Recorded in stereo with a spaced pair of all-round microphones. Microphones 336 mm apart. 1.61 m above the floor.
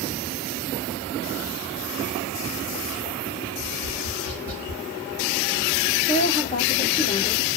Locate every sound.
3.6 s tapping: 75° right (ahead or behind), 0.8 m
6.1 s a woman speaking: 25° left (ahead or behind), 1.1 m